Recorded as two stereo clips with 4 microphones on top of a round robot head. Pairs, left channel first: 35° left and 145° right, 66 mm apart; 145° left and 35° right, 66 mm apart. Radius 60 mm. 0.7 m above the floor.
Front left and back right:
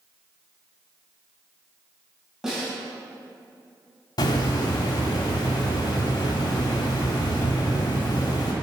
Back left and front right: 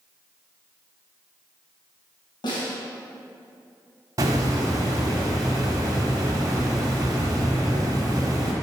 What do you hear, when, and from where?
2.4 s a snare drum: 130° left, 3 m
4.2 s a hiss: 10° left, 1.6 m